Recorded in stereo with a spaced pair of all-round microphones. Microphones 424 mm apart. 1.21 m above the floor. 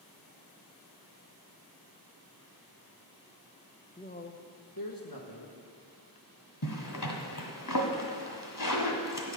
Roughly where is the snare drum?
I don't hear a snare drum.